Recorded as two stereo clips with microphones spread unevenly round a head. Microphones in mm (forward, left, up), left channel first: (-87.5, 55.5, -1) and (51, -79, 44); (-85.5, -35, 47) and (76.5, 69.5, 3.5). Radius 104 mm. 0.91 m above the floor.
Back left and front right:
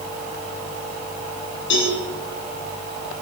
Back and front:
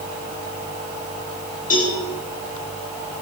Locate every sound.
1.7 s a cowbell: 165° left, 9 m